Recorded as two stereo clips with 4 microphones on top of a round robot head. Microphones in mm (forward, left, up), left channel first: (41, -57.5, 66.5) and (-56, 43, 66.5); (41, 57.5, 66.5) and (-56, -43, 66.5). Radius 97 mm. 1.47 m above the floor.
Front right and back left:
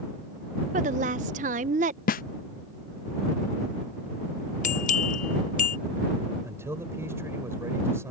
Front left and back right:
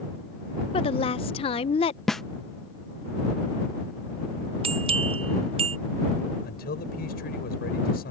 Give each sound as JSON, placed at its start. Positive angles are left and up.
{"t": 0.7, "sound": "a woman speaking", "azimuth_deg": 95}
{"t": 2.1, "sound": "a snare drum", "azimuth_deg": -45}
{"t": 4.6, "sound": "a bell", "azimuth_deg": -80}
{"t": 6.4, "sound": "a man speaking", "azimuth_deg": 60}